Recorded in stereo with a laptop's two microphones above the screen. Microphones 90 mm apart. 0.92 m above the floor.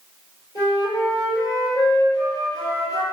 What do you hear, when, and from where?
0.6 s a flute: 45° left (ahead or behind), 2.0 m